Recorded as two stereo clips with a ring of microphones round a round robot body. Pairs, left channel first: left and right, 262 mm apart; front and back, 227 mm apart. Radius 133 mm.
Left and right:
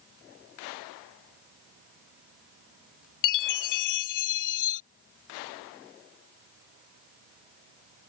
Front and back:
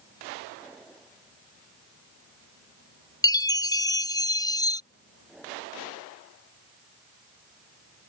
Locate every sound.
3.2 s a chime: 75° left